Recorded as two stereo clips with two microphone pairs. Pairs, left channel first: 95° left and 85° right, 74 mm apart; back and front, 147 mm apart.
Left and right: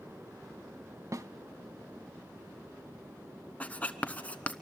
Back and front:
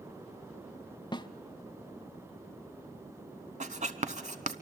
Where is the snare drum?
125° right, 0.5 m.